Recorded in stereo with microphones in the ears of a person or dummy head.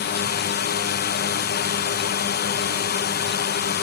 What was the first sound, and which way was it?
A drone, 45° left (ahead or behind).